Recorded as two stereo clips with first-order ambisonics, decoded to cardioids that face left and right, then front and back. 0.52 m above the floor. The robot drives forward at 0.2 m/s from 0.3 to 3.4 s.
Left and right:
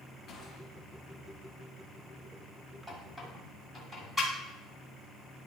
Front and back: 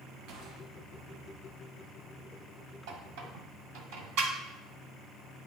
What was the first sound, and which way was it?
A gunshot, 155° left.